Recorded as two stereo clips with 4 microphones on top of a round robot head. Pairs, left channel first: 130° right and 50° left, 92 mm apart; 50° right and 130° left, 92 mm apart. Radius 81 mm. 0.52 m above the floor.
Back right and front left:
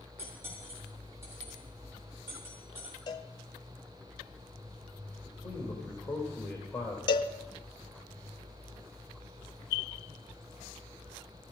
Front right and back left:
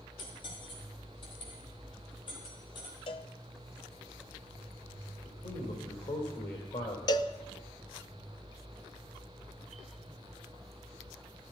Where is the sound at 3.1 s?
85° right, 0.8 m.